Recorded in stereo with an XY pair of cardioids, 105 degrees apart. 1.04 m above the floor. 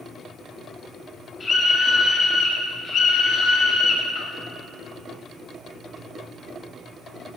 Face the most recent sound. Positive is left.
turn(degrees=70)